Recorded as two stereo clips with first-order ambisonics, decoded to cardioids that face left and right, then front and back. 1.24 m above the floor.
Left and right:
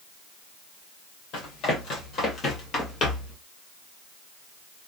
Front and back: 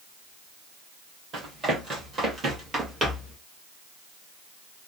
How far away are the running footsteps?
About 2 m.